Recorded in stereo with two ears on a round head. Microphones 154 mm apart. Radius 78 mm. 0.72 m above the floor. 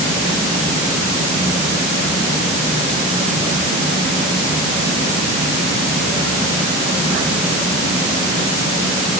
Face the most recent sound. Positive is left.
No sound to turn to.